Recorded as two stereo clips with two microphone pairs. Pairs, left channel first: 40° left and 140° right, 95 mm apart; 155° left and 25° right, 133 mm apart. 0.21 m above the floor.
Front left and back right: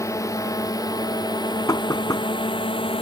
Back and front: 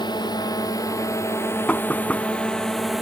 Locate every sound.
0.0 s a drone: 100° left; by 3.0 s 60° left
1.7 s knocking: 75° left